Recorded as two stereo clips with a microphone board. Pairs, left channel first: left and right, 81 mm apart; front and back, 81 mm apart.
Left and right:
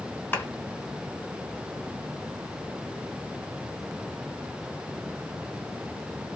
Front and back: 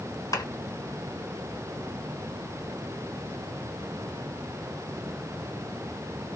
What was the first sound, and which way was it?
A clap, 25° left.